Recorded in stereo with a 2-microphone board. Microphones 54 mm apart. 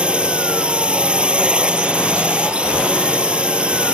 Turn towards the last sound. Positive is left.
turn(degrees=-20)  # may be behind; listen again after turning